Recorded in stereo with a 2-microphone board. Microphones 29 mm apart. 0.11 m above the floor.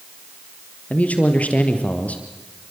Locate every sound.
0.9 s a man speaking: 55° left (ahead or behind), 3 m